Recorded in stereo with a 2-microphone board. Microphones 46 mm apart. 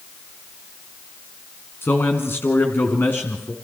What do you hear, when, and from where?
1.8 s a man speaking: 55° left (ahead or behind), 2.5 m; by 3.5 s 50° left (ahead or behind), 2.5 m